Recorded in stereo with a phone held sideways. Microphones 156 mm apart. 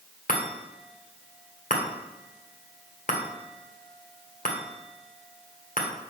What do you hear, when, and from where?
0.3 s a chime: 60° left (ahead or behind), 1.7 m